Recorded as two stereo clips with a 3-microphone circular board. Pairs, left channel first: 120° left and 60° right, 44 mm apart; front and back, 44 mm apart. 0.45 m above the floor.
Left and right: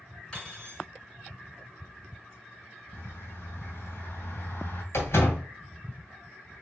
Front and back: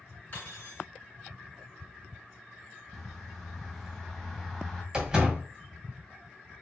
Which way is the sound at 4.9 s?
105° left.